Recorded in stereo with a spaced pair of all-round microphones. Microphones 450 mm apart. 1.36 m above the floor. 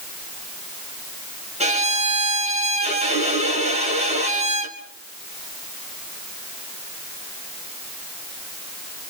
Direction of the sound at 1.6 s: 15° right (ahead or behind).